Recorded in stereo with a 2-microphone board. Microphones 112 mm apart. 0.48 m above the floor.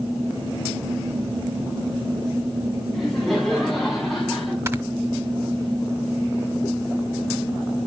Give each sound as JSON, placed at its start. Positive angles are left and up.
{"t": 2.9, "sound": "laughter", "side_deg": 0, "distance_m": 4.5}
{"t": 4.7, "sound": "snoring", "side_deg": -25, "distance_m": 1.4}